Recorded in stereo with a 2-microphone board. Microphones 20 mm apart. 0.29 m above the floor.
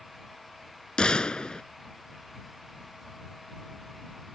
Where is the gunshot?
50° left (ahead or behind).